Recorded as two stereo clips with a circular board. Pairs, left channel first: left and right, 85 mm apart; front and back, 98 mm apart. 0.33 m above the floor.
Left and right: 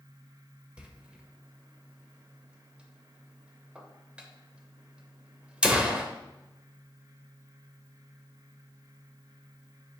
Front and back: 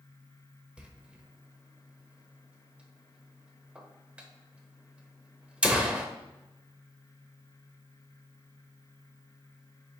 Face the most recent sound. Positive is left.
turn(degrees=-130)